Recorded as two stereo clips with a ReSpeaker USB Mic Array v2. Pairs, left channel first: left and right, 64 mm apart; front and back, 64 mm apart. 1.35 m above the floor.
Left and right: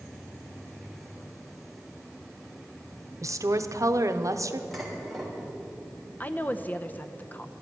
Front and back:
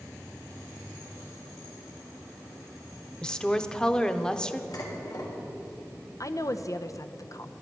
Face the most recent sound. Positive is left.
turn(degrees=30)